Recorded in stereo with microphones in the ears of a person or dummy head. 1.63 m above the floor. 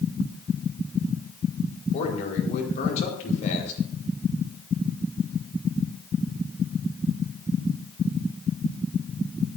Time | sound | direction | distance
1.9 | a man speaking | 40° left (ahead or behind) | 4.5 m